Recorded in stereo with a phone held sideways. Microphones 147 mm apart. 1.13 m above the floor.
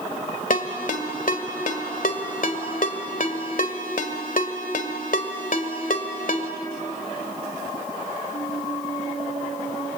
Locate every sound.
0.5 s a ringtone: 70° left (ahead or behind), 1.7 m